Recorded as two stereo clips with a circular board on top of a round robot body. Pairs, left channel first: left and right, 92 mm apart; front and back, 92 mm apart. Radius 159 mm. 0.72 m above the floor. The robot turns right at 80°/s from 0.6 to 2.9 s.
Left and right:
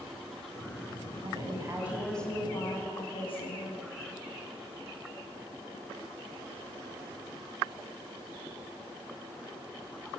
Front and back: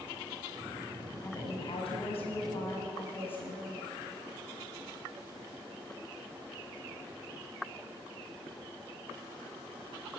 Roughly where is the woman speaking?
Ahead right.